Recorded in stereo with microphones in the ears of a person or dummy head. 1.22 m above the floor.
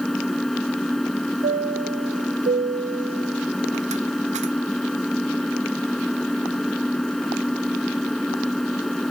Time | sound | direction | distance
0.0 | an engine running | 5° right (ahead or behind) | ?
1.4 | a chime | 30° right (ahead or behind) | ?